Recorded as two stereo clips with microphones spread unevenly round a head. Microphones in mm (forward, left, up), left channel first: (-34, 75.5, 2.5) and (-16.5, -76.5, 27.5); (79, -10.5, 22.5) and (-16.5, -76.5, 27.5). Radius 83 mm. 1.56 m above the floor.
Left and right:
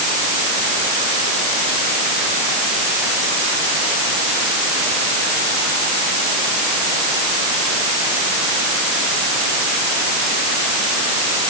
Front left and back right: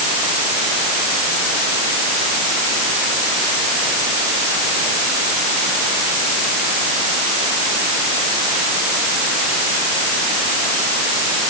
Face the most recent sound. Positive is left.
No sound to turn to.